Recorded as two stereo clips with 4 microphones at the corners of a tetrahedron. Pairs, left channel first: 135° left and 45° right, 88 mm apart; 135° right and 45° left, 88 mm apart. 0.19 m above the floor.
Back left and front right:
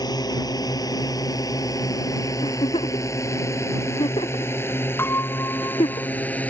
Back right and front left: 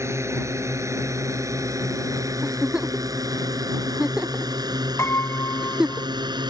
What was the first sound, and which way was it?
A drone, 100° left.